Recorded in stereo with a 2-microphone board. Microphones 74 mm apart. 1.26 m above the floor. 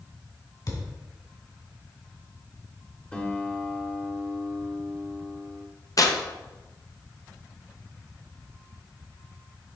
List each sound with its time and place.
0.7 s a thud: 55° left (ahead or behind), 1.9 m
3.1 s a guitar: 20° left (ahead or behind), 0.9 m
6.0 s tearing paper: 50° left (ahead or behind), 0.7 m